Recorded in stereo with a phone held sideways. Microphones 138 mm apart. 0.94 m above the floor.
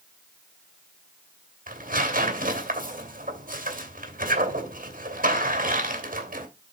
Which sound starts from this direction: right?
Tearing paper, at 1.7 s.